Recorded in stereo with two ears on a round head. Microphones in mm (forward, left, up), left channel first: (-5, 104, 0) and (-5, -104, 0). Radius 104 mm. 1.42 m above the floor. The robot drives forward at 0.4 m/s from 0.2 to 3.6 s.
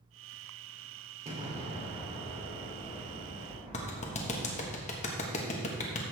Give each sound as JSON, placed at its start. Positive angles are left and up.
{"t": 1.2, "sound": "an explosion", "side_deg": -30, "distance_m": 3.0}
{"t": 3.7, "sound": "a clap", "side_deg": 30, "distance_m": 1.3}